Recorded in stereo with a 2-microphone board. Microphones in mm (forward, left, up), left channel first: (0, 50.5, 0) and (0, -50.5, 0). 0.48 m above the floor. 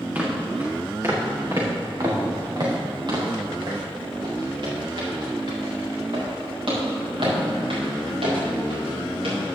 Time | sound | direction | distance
0.1 | footsteps | 15° right (ahead or behind) | 3 m